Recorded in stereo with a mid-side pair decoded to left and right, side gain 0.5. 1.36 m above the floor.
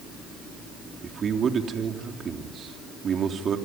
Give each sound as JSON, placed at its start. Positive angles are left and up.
{"t": 1.0, "sound": "a man speaking", "azimuth_deg": -45, "distance_m": 3.0}